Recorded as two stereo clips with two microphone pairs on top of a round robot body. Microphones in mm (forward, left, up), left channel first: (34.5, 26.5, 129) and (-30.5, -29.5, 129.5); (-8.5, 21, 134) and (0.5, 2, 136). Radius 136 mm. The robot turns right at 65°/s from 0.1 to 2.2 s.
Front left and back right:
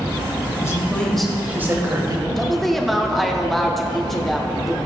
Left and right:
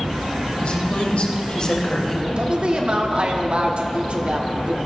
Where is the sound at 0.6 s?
90° left, 2.5 m; by 2.3 s 165° right, 2.5 m.